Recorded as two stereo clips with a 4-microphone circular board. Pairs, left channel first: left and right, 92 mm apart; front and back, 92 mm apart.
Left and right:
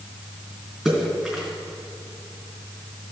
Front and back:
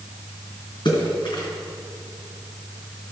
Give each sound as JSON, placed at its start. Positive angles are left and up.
{"t": 0.8, "sound": "a splash", "azimuth_deg": 0, "distance_m": 3.0}